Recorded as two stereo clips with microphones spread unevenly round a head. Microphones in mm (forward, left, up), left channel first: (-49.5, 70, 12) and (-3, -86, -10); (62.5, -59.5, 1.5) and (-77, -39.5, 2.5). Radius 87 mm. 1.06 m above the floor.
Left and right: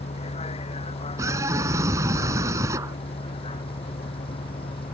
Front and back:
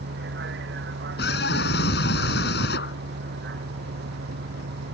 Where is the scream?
Straight ahead.